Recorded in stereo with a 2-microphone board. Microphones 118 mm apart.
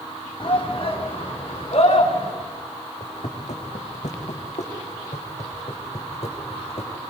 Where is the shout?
45° left (ahead or behind), 3 m; by 2.3 s 55° left (ahead or behind), 5 m.